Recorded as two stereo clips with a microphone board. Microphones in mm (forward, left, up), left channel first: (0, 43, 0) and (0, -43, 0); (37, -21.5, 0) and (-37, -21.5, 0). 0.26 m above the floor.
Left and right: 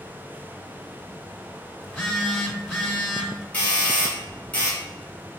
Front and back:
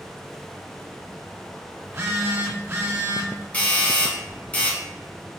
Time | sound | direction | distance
1.8 | a phone buzzing | 140° left | 1.3 m
3.5 | a doorbell | 40° left | 1.5 m